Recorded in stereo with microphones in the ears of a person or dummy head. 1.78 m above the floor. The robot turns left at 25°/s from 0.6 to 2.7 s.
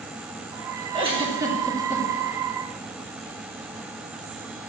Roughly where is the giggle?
Right.